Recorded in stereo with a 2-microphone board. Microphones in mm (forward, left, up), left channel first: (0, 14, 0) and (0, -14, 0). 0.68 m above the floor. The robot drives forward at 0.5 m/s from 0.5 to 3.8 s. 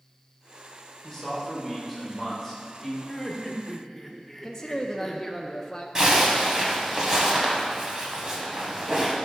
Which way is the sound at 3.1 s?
10° left (ahead or behind).